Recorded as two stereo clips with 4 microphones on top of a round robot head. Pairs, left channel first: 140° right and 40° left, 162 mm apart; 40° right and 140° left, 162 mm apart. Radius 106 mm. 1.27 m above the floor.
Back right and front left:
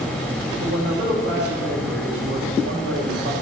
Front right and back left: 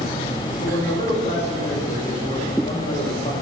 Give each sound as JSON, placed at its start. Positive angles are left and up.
{"t": 0.6, "sound": "a man speaking", "azimuth_deg": 20, "distance_m": 8.0}